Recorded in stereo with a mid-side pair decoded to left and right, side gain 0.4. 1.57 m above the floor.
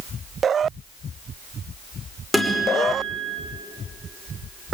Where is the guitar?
5° left, 5.5 m.